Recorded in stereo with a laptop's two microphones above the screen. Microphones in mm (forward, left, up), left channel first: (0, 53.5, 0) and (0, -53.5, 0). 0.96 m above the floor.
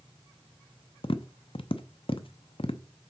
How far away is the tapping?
About 0.6 m.